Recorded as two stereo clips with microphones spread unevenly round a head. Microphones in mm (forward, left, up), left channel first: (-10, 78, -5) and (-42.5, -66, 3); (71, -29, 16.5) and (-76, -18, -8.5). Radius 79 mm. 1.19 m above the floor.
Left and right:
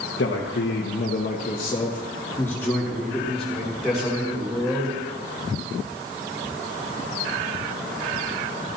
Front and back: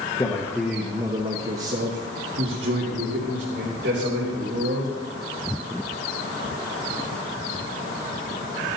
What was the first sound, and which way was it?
A man speaking, 65° left.